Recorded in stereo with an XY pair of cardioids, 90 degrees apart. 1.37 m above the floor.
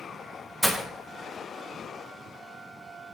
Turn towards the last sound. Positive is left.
turn(degrees=-5)